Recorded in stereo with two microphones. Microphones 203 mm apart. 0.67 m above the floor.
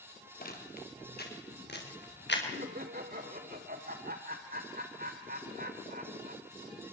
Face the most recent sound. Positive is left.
turn(degrees=-50)  # may be behind; listen again after turning